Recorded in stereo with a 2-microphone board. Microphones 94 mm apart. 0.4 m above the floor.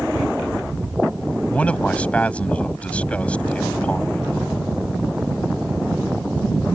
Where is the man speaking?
15° left (ahead or behind).